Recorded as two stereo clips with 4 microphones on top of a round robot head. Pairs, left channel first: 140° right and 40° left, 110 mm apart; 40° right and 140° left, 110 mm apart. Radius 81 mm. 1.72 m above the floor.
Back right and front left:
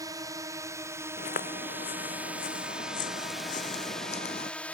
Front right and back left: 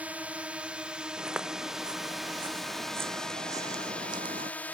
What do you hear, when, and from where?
0.0 s a drone: 70° left; by 4.8 s 85° right
1.2 s footsteps: 135° right; by 4.5 s straight behind